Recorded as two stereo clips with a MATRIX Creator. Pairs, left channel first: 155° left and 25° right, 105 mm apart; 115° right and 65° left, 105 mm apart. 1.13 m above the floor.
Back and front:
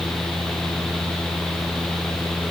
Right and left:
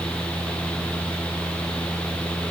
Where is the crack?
I don't hear a crack.